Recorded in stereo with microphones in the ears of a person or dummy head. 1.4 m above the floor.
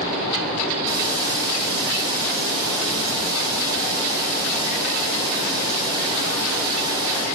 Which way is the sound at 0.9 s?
25° right (ahead or behind).